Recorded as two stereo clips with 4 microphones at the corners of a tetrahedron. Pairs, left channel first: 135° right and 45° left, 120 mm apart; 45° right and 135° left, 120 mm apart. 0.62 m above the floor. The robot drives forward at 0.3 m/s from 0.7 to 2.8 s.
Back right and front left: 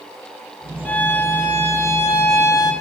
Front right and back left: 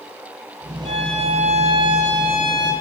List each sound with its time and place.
0.8 s a violin: 150° left, 0.6 m; by 2.7 s 165° left, 1.1 m